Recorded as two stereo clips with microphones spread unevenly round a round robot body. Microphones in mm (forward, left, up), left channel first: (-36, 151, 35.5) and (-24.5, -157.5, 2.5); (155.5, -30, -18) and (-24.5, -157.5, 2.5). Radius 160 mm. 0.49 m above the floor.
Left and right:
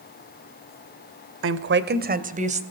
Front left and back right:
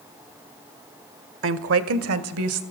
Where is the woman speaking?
125° right, 1.5 m; by 2.6 s 155° right, 2.5 m.